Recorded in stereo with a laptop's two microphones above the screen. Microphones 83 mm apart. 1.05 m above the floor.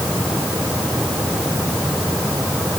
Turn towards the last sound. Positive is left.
No sound to turn to.